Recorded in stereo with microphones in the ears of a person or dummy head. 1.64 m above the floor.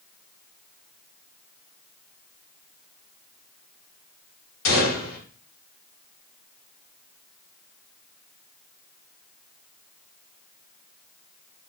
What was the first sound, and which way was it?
A gunshot, 90° left.